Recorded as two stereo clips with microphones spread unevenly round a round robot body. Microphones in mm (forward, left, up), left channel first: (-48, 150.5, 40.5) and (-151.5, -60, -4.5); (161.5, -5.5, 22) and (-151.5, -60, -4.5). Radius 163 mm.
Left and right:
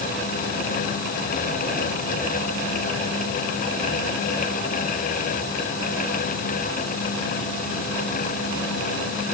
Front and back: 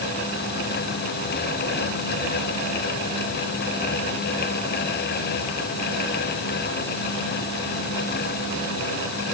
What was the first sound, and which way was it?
Only background noise.